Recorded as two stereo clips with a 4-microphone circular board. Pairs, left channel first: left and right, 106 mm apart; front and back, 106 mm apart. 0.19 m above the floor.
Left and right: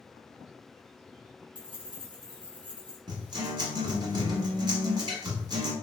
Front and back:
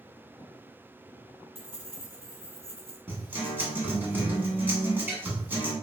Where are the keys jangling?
120° right, 1.6 m.